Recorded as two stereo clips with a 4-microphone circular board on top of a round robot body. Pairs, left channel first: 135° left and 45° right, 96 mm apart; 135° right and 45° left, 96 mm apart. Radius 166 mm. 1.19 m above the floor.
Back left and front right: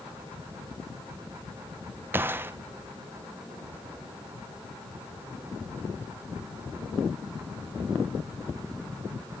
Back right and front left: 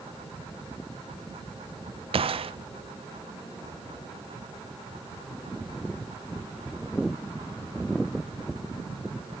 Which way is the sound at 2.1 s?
25° left.